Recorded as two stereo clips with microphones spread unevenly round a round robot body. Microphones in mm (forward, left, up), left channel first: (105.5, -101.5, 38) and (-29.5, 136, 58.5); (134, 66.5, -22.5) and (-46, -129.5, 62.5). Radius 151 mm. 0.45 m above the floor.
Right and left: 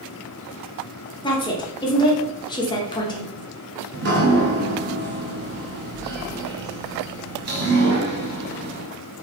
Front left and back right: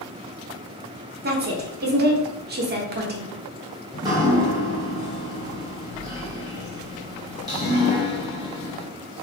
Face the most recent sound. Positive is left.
turn(degrees=135)